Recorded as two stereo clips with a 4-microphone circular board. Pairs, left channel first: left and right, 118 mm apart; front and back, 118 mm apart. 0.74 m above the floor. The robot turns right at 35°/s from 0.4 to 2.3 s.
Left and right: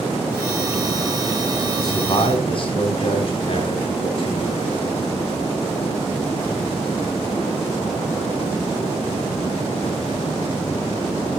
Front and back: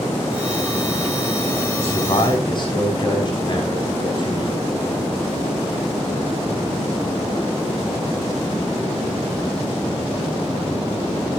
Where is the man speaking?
30° left, 5 m; by 4.7 s 50° left, 5 m.